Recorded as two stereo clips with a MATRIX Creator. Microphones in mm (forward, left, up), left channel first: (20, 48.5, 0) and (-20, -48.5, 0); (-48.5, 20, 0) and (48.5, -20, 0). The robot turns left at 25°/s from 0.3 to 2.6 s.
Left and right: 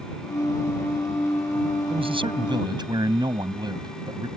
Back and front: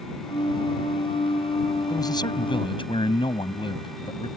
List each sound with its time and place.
1.9 s a man speaking: 145° right; by 4.3 s 160° right